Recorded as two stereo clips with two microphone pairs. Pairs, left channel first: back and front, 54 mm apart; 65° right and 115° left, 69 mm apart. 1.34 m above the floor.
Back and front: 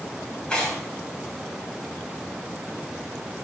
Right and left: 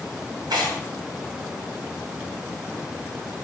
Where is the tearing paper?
110° left, 5 m.